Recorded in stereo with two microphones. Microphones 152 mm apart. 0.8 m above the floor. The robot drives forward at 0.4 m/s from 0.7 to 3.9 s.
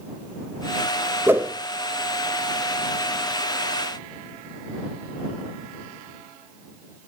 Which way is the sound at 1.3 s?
15° right (ahead or behind).